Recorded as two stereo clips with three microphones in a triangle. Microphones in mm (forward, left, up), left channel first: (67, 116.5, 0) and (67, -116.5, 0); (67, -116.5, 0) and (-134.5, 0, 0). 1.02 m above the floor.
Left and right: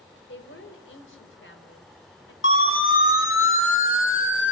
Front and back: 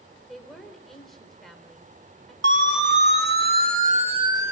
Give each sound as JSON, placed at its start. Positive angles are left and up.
{"t": 0.3, "sound": "a woman speaking", "azimuth_deg": 60, "distance_m": 4.0}
{"t": 2.4, "sound": "a siren", "azimuth_deg": 120, "distance_m": 3.5}